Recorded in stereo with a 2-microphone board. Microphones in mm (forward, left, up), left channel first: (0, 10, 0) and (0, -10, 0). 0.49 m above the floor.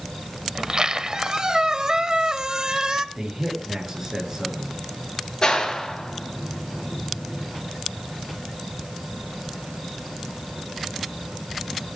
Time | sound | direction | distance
0.6 | a squeak | 45° right (ahead or behind) | 1.0 m
3.1 | a man speaking | 20° right (ahead or behind) | 8 m
5.4 | a clap | 45° left (ahead or behind) | 6.5 m